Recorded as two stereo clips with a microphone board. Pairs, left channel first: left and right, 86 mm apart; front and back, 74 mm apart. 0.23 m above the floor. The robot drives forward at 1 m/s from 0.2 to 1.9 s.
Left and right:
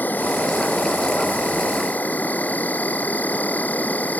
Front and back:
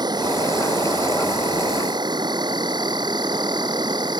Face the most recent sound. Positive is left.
turn(degrees=160)